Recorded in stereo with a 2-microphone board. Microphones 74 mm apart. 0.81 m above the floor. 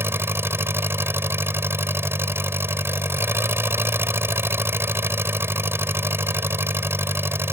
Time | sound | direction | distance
0.0 | an engine running | 35° right (ahead or behind) | ?